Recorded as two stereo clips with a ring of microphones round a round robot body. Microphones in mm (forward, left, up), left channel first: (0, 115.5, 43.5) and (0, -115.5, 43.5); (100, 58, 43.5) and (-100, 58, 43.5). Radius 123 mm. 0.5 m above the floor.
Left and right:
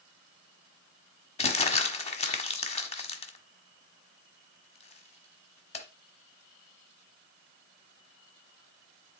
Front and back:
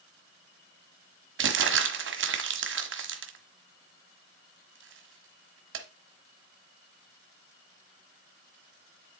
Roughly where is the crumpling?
Behind left.